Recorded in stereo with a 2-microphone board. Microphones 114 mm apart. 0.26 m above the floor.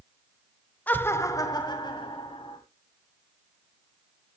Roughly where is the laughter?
Centre.